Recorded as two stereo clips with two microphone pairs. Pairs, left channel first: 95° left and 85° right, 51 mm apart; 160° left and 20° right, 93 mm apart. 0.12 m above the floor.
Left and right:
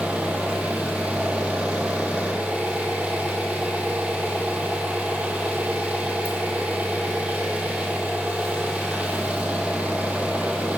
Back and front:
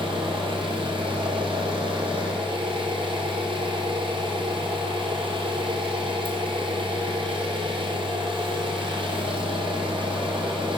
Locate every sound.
0.0 s an engine running: 20° right, 1.1 m